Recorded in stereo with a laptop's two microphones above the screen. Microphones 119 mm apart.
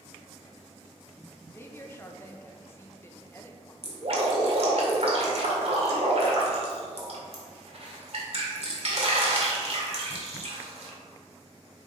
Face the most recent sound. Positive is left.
turn(degrees=-55)  # may be behind; listen again after turning